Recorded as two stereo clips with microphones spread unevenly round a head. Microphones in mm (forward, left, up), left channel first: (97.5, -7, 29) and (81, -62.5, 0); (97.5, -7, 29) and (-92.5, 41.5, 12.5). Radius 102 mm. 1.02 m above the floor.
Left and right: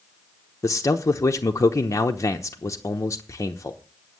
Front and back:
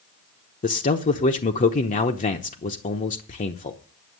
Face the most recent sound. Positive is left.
turn(degrees=20)